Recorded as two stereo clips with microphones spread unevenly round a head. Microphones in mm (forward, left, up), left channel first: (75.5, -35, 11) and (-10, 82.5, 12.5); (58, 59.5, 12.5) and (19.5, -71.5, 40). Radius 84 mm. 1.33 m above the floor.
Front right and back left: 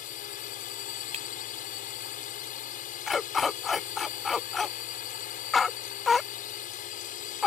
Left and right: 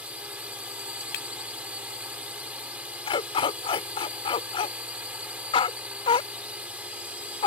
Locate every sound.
0.0 s a drone: 25° right
1.1 s breaking glass: 80° left
3.1 s a dog barking: 35° left